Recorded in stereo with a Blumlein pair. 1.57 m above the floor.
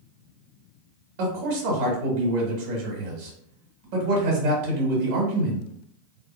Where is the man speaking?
50° right, 2 m.